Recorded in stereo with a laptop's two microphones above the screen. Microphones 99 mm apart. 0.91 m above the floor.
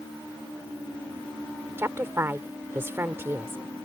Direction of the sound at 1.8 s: 25° right (ahead or behind).